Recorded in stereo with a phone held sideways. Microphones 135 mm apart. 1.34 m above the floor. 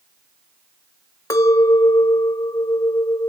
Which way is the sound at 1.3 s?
25° left (ahead or behind).